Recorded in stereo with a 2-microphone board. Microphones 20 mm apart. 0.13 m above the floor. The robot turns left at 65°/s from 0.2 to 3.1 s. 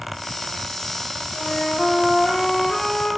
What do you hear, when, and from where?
1.3 s a flute: 120° left, 5 m; by 3.1 s 5° left, 5 m